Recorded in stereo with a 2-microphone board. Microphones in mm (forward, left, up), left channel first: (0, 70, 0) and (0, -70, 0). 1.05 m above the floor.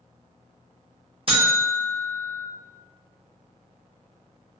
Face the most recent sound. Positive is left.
turn(degrees=-45)  # may be behind; listen again after turning